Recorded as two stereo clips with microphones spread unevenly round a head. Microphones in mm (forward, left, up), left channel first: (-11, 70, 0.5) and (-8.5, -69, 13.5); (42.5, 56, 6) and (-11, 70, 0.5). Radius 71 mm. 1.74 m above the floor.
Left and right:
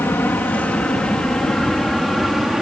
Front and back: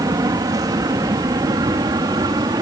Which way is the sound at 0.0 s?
170° left.